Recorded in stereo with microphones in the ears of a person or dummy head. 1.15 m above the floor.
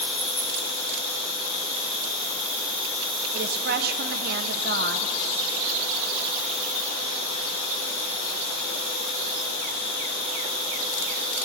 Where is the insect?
70° left (ahead or behind), 6 m.